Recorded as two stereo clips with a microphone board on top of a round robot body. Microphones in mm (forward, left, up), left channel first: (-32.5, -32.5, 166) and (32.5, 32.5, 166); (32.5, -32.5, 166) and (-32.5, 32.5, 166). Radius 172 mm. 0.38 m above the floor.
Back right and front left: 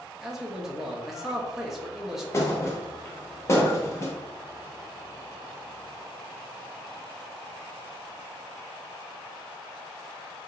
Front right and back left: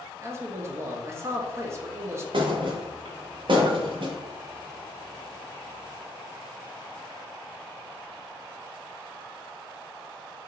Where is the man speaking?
125° left, 0.9 m.